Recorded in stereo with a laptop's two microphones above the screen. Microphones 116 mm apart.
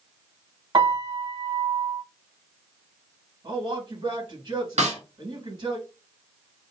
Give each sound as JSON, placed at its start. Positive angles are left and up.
{"t": 0.7, "sound": "a piano", "side_deg": -40, "distance_m": 1.7}
{"t": 3.4, "sound": "a man speaking", "side_deg": -50, "distance_m": 1.9}
{"t": 4.8, "sound": "a snare drum", "side_deg": -70, "distance_m": 1.0}